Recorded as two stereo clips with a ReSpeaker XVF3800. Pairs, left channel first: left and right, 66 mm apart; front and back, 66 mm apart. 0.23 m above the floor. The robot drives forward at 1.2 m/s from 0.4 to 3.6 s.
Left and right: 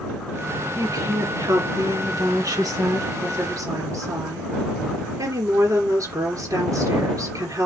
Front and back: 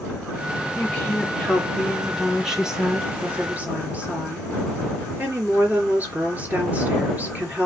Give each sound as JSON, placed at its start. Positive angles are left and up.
{"t": 0.8, "sound": "a woman speaking", "azimuth_deg": -70, "distance_m": 4.5}